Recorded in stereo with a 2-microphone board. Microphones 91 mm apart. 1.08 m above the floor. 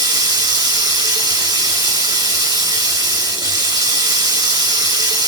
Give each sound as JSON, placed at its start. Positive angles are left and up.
{"t": 0.0, "sound": "running water", "side_deg": -45, "distance_m": 0.8}